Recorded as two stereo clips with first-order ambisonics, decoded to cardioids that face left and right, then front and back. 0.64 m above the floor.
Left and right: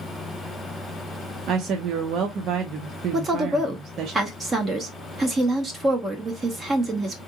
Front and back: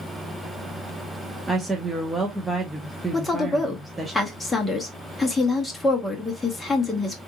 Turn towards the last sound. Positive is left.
turn(degrees=-65)